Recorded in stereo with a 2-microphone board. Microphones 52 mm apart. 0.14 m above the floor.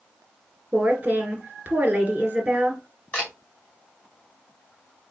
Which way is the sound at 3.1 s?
25° left (ahead or behind).